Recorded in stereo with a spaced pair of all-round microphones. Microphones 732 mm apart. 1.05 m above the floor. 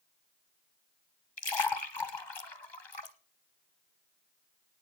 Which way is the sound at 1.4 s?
35° left (ahead or behind).